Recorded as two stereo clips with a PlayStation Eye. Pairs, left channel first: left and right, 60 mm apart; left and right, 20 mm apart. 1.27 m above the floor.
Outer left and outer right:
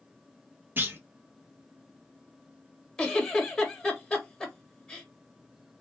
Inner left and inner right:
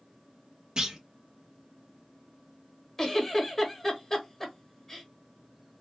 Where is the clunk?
35° right (ahead or behind), 0.6 m.